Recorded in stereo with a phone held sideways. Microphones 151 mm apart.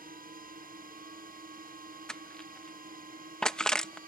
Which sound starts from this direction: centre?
Crushing, at 2.1 s.